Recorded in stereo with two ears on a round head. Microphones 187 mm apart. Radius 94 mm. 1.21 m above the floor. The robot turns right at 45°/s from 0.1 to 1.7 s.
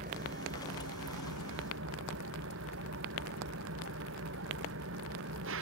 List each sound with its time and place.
0.0 s an engine running: 135° right; by 5.6 s 65° right